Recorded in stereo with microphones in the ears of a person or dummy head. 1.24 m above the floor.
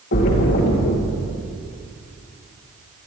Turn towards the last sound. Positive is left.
turn(degrees=60)  # may be behind; listen again after turning